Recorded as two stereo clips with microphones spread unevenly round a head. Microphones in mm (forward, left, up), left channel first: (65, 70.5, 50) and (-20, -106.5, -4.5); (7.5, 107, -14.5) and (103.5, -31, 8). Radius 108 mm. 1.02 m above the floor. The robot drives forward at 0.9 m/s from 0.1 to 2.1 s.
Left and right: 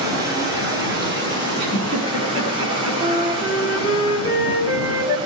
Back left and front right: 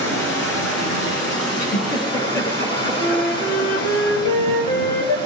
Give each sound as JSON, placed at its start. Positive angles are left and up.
{"t": 0.0, "sound": "running water", "azimuth_deg": 170, "distance_m": 3.0}
{"t": 1.6, "sound": "a giggle", "azimuth_deg": 180, "distance_m": 5.0}
{"t": 3.0, "sound": "a flute", "azimuth_deg": 175, "distance_m": 1.9}